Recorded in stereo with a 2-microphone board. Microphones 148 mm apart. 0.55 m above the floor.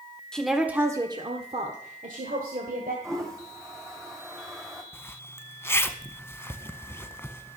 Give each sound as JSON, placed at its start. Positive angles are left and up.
{"t": 0.3, "sound": "a woman speaking", "side_deg": 5, "distance_m": 1.1}
{"t": 3.0, "sound": "a toilet flushing", "side_deg": -20, "distance_m": 2.0}
{"t": 4.9, "sound": "a zipper", "side_deg": 15, "distance_m": 0.6}